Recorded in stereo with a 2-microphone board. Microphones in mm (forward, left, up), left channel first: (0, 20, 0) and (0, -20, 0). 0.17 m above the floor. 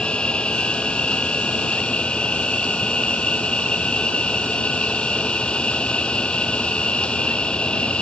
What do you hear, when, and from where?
0.0 s an insect: 30° left (ahead or behind)